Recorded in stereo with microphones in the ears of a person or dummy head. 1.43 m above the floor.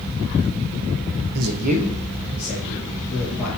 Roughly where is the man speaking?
Right.